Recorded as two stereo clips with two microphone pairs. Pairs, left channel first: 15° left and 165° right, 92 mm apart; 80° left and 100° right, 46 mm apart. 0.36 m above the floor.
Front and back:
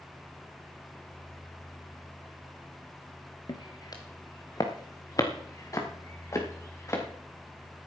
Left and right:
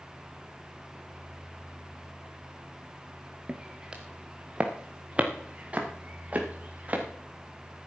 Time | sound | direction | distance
3.5 | footsteps | 25° right | 1.9 m